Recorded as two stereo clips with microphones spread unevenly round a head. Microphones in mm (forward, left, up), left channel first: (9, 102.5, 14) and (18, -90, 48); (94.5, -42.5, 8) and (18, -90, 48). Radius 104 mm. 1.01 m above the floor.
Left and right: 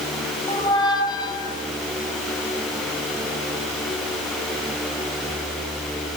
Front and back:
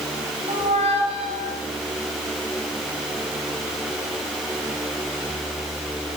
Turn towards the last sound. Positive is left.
turn(degrees=165)